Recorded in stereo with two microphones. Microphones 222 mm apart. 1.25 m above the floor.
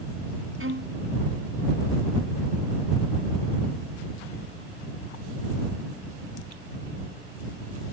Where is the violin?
70° right (ahead or behind).